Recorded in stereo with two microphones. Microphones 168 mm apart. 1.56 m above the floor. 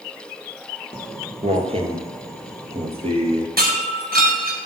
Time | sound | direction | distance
0.9 | footsteps | 35° right (ahead or behind) | 2 m
3.6 | breaking glass | 65° right (ahead or behind) | 4.5 m